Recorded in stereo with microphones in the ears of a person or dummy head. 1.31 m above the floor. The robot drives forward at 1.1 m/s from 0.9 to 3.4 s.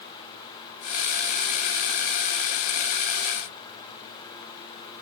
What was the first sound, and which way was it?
Only background noise.